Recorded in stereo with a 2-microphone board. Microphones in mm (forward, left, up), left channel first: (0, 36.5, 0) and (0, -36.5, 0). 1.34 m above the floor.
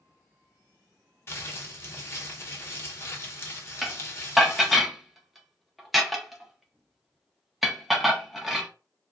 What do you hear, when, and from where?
1.3 s crumpling: 35° left (ahead or behind), 0.9 m
3.8 s dishes clattering: 5° right (ahead or behind), 0.7 m